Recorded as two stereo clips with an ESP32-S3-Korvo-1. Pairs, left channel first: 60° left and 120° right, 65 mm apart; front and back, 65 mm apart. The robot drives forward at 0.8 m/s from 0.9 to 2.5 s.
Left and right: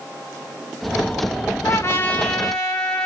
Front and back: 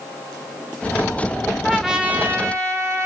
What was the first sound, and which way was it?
A trumpet, 80° left.